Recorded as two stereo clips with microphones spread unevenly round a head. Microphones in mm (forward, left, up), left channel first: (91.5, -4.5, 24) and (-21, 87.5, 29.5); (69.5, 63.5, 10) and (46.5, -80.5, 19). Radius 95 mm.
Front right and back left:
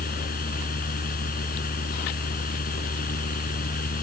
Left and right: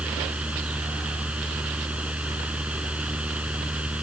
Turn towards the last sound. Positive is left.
turn(degrees=-15)